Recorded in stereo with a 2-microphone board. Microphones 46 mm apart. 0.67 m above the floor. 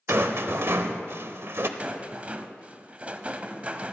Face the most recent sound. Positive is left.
turn(degrees=-30)  # may be behind; listen again after turning